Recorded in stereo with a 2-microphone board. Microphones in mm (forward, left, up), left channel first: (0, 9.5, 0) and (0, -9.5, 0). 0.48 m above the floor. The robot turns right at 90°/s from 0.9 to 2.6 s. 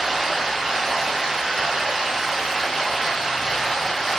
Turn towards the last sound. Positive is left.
turn(degrees=0)